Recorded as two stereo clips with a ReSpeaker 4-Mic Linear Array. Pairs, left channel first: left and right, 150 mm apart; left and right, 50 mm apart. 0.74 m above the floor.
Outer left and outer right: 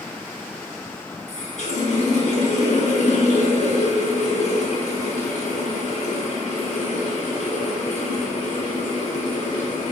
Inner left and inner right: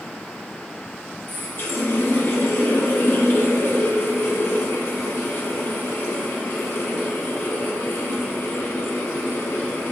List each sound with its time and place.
1.3 s a running tap: 50° left (ahead or behind), 0.7 m